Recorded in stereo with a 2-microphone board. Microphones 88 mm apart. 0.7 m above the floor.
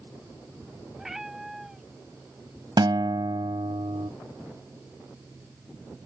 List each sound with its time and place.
1.0 s a cat meowing: 5° right (ahead or behind)
2.8 s a guitar: 60° right (ahead or behind)